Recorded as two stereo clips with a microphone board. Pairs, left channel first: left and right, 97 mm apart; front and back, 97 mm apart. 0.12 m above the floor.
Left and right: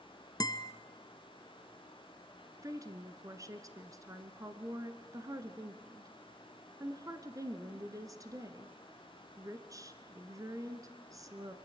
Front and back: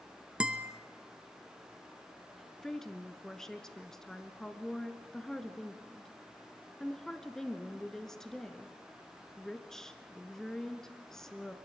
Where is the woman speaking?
80° right, 1.4 m.